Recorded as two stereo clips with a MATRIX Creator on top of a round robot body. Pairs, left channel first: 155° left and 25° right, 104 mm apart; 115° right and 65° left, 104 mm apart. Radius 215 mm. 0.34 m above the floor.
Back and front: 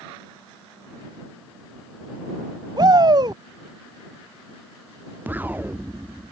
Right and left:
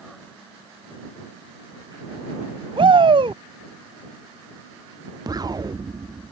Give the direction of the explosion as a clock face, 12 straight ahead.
11 o'clock.